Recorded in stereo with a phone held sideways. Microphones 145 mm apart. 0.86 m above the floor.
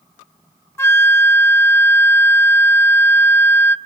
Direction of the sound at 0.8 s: 20° left (ahead or behind).